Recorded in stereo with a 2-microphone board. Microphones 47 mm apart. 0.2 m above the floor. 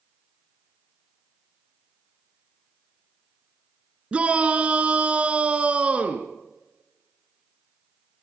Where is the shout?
30° right (ahead or behind), 2.5 m.